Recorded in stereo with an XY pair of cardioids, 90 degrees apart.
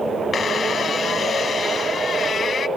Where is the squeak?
55° left, 1.0 m.